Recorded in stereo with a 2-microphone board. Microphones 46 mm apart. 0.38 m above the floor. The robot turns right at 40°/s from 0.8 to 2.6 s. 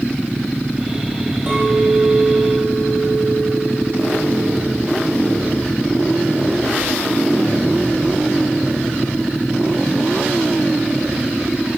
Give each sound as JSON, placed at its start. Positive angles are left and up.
{"t": 1.5, "sound": "a clink", "azimuth_deg": -15, "distance_m": 6.5}